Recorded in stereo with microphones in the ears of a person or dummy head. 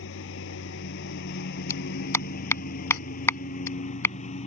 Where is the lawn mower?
75° left (ahead or behind); by 4.5 s 40° left (ahead or behind).